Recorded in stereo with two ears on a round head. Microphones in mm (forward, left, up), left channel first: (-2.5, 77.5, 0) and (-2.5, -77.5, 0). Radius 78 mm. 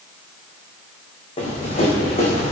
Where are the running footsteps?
35° left (ahead or behind), 6 m; by 2.5 s 40° left (ahead or behind), 6 m.